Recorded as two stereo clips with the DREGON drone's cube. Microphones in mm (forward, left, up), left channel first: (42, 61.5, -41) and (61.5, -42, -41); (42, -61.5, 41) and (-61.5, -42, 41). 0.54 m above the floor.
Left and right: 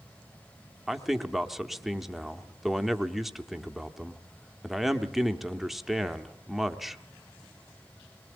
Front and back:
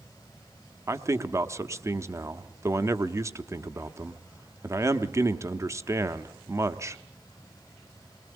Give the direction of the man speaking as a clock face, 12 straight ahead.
5 o'clock.